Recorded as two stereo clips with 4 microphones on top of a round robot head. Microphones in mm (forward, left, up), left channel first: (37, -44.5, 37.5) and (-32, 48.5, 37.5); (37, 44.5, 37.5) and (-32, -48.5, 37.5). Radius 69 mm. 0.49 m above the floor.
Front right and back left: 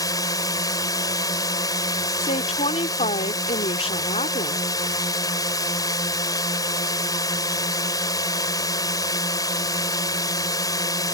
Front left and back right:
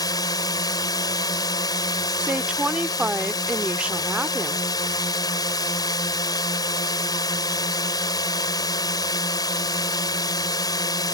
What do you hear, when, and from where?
0.0 s a drone: straight ahead
2.2 s a woman speaking: 50° right